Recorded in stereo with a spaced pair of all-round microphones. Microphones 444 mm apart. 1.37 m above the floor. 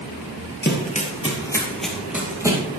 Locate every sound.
0.6 s running footsteps: 25° left (ahead or behind), 1.8 m; by 2.6 s 10° right (ahead or behind), 2.5 m